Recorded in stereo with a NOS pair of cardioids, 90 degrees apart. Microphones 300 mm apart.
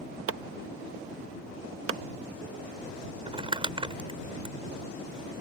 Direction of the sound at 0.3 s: 45° right.